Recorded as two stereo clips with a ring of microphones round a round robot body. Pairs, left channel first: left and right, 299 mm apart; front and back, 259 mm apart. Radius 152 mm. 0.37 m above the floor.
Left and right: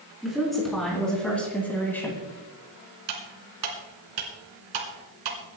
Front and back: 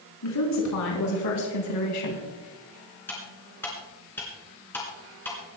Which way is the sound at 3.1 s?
85° right.